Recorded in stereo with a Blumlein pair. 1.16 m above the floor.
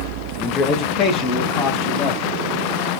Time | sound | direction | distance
0.4 | a man speaking | 25° left | 0.6 m